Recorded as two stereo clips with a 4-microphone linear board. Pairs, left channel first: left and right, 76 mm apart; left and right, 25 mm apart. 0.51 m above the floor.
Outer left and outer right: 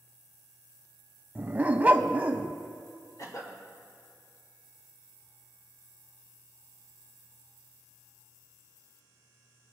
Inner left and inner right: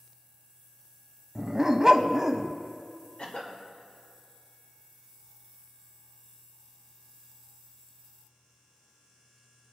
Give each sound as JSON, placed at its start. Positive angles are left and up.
{"t": 1.4, "sound": "a dog barking", "side_deg": -20, "distance_m": 0.6}
{"t": 3.2, "sound": "a cough", "side_deg": 50, "distance_m": 2.0}